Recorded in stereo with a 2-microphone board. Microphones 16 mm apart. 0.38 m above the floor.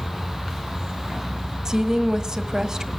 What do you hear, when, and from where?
1.6 s a woman speaking: 40° right (ahead or behind), 1.6 m